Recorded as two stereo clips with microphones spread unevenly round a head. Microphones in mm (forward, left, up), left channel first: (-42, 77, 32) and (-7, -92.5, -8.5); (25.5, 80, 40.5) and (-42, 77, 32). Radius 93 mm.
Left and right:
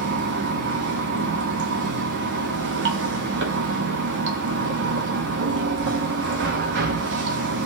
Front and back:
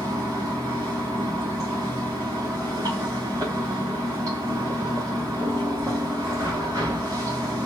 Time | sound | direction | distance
0.0 | running water | 105° right | 0.8 m